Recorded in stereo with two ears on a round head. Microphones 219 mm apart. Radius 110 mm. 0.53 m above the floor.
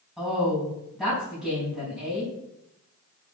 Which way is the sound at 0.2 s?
Centre (ahead or behind).